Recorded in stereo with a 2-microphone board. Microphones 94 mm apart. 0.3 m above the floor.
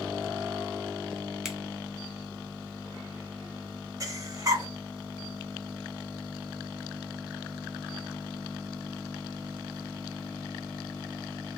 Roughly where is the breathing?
Right.